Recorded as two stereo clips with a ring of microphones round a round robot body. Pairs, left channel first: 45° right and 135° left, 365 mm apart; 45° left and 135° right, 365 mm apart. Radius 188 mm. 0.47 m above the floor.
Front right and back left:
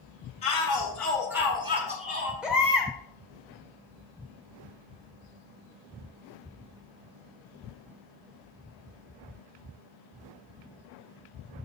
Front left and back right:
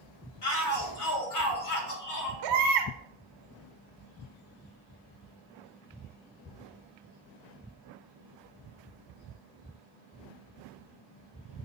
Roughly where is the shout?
Ahead.